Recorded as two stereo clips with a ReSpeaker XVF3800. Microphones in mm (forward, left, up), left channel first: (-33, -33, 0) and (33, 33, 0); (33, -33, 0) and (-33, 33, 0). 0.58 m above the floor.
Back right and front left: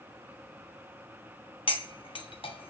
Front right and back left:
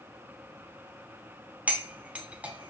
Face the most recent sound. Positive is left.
turn(degrees=-150)